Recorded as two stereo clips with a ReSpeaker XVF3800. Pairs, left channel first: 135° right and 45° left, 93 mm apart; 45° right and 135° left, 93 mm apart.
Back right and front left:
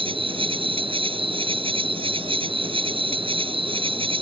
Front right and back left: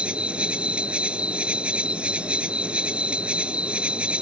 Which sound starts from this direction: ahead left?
An insect, at 0.0 s.